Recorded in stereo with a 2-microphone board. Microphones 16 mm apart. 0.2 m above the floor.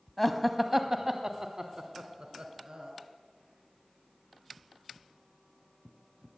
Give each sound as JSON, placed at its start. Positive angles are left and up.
{"t": 0.2, "sound": "laughter", "side_deg": 10, "distance_m": 1.0}